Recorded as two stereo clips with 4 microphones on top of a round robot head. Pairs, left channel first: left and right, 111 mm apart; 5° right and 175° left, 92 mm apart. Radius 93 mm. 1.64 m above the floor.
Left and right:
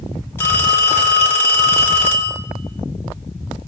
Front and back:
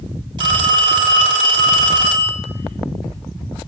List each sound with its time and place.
0.4 s a phone ringing: 155° left, 1.1 m